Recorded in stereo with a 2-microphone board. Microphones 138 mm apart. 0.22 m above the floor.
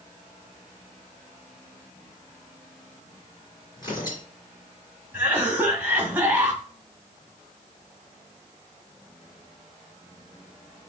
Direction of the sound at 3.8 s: 30° left (ahead or behind).